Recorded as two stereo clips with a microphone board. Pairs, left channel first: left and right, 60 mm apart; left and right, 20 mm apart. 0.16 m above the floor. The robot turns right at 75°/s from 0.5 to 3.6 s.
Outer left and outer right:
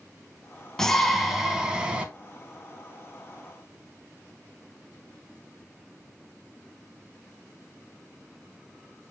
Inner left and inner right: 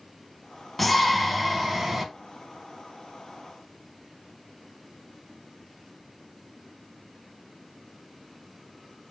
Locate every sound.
0.8 s a shout: 10° left (ahead or behind), 1.0 m; by 2.0 s 20° right (ahead or behind), 1.0 m